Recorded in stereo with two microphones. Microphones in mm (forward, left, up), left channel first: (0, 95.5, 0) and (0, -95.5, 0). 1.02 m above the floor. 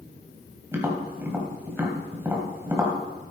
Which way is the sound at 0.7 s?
10° right (ahead or behind).